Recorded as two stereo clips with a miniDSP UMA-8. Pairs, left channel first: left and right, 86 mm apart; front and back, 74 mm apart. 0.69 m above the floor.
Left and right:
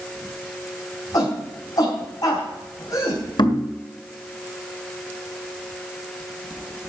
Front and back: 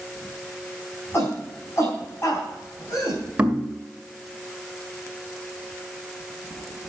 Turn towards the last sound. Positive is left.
turn(degrees=110)